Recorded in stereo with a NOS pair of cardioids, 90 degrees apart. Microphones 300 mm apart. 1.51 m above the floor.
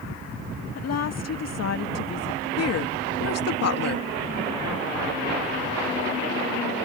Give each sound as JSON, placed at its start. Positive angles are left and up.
{"t": 0.8, "sound": "a woman speaking", "azimuth_deg": 55}
{"t": 2.6, "sound": "a woman speaking", "azimuth_deg": 55}